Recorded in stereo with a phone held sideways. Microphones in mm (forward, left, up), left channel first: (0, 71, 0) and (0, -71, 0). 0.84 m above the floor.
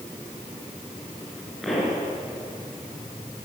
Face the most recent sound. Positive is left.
turn(degrees=0)  # may be behind; listen again after turning